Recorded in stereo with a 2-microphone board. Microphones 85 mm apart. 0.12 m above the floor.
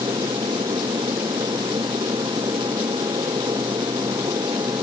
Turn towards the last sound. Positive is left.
turn(degrees=-60)  # may be behind; listen again after turning